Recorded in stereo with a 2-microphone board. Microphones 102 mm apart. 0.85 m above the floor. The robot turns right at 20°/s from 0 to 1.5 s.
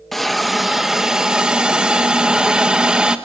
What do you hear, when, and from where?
0.1 s a hiss: centre (ahead or behind), 0.9 m; by 3.2 s 10° right (ahead or behind), 0.9 m